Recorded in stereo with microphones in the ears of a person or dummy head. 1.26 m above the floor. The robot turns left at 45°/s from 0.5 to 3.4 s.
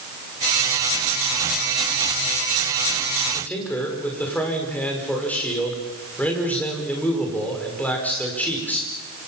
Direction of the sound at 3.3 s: 5° left (ahead or behind).